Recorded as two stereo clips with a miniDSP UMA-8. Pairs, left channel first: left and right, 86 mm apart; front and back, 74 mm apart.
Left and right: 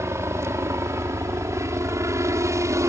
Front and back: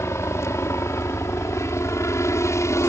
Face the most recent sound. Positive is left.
turn(degrees=-40)